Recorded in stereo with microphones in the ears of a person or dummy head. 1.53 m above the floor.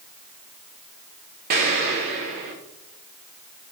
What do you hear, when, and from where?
1.5 s an explosion: 35° right (ahead or behind), 1.4 m